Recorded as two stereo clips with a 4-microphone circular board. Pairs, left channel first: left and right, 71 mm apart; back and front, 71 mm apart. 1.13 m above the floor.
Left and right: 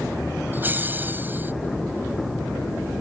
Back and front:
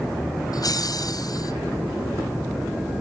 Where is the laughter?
155° right.